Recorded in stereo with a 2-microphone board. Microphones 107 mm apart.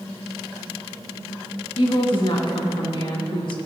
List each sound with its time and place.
1.8 s a woman speaking: 55° left (ahead or behind), 2.5 m